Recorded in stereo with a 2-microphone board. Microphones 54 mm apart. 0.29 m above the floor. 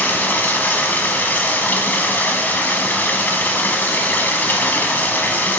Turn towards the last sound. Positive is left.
turn(degrees=35)  # may be behind; listen again after turning